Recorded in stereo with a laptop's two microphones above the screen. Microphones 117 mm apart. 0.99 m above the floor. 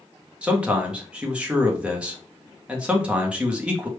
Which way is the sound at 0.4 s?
10° right (ahead or behind).